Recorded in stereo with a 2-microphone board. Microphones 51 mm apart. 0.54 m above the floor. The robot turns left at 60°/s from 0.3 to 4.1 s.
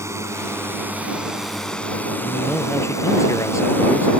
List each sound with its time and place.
0.0 s a drone: 110° right; by 4.2 s 25° left
2.2 s a man speaking: 165° left; by 4.1 s 50° left